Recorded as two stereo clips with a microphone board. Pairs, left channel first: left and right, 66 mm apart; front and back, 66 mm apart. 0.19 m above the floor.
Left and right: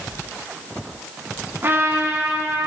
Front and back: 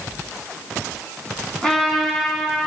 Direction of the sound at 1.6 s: 75° right.